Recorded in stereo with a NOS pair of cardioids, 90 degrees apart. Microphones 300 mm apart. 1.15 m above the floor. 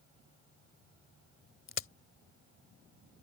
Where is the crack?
45° left.